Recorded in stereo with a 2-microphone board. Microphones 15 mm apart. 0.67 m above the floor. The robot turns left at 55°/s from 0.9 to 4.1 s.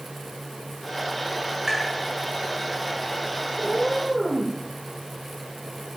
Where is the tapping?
45° right (ahead or behind), 7 m; by 1.9 s 35° right (ahead or behind), 7 m.